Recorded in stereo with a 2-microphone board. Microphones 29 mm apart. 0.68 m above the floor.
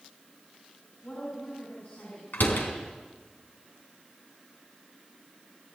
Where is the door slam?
80° left, 4 m.